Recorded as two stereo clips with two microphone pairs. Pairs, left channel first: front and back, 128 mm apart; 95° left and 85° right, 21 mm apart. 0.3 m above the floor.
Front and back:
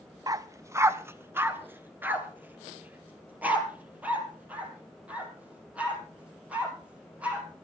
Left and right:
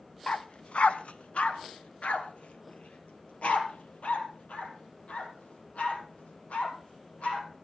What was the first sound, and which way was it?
A dog barking, 125° left.